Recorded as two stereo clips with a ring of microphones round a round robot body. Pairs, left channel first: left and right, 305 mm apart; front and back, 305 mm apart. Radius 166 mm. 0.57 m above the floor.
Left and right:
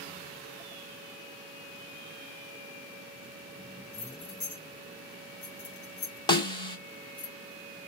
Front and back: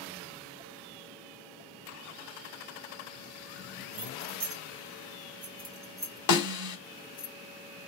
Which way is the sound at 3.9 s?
150° left.